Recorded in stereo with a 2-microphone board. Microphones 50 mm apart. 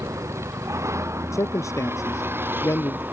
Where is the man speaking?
75° left (ahead or behind).